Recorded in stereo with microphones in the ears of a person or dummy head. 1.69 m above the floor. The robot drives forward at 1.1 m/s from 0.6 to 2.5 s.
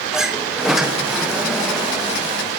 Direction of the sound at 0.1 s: 5° right (ahead or behind).